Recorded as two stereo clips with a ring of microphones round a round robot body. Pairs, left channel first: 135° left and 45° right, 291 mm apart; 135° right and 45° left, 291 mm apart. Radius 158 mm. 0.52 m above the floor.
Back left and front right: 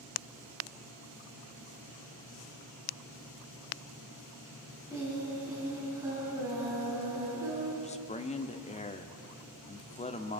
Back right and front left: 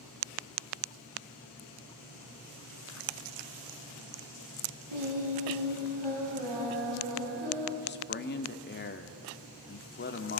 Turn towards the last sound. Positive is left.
turn(degrees=-170)